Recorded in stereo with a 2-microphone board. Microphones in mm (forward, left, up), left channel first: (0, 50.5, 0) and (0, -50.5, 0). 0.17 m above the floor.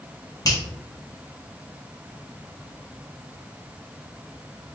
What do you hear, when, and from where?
0.5 s a finger snap: 40° left (ahead or behind), 1.3 m